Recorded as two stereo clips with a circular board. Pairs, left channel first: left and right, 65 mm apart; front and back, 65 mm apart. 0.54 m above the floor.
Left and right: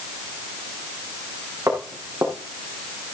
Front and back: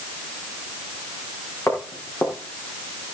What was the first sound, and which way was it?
Footsteps, 50° right.